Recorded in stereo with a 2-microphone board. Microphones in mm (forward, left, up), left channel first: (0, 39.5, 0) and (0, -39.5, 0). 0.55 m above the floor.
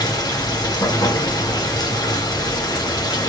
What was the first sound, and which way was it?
Running water, 60° left (ahead or behind).